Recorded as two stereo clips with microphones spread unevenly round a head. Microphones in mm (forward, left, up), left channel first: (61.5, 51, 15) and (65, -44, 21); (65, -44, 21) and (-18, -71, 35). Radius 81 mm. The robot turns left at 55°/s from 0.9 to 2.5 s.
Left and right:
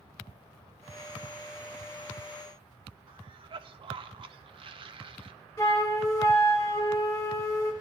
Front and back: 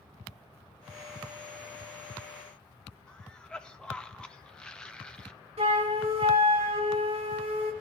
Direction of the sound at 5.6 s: 165° left.